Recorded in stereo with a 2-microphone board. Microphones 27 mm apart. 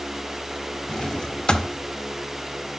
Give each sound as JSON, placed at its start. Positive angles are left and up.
{"t": 0.9, "sound": "a drawer", "side_deg": 30, "distance_m": 0.5}